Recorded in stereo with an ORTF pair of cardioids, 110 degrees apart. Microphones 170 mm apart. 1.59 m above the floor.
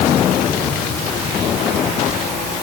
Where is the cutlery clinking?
No cutlery clinking in this recording.